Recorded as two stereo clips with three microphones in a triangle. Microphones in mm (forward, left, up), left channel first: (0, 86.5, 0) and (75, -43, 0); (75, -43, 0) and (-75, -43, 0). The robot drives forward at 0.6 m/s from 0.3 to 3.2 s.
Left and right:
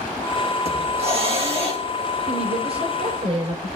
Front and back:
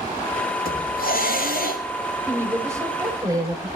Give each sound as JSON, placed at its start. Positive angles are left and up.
{"t": 0.7, "sound": "a hiss", "azimuth_deg": -10, "distance_m": 8.5}
{"t": 2.3, "sound": "a woman speaking", "azimuth_deg": -105, "distance_m": 5.5}